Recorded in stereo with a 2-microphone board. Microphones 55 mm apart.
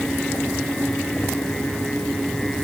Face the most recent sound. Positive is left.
No sound to turn to.